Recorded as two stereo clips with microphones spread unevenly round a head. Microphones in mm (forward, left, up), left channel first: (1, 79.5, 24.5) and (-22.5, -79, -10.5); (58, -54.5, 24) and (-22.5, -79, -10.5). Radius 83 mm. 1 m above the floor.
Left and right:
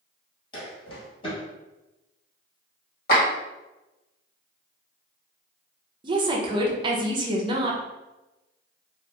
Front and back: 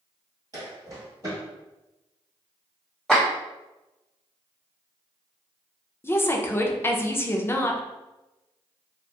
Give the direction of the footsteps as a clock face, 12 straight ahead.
8 o'clock.